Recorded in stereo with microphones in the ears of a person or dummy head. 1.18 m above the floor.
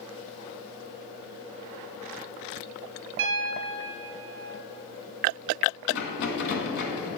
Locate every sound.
3.2 s a piano: 75° right (ahead or behind), 1.4 m
5.9 s a rattle: 60° left (ahead or behind), 2 m